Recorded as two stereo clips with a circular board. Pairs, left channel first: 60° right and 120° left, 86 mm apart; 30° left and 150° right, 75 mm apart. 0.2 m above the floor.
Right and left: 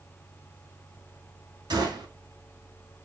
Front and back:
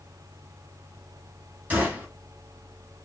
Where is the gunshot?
145° left, 1.2 m.